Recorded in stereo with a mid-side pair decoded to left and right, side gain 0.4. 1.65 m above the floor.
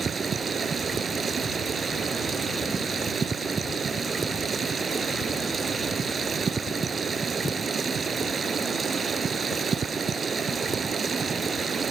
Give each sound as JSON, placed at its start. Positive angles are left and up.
{"t": 0.0, "sound": "running water", "azimuth_deg": -45}